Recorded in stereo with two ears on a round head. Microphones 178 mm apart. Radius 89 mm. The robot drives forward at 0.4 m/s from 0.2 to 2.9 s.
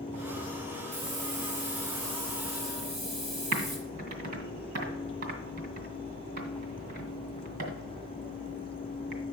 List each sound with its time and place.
0.9 s a hiss: 40° right (ahead or behind), 1.7 m; by 3.8 s 30° right (ahead or behind), 2.5 m
3.5 s typing on a keyboard: 65° right (ahead or behind), 2 m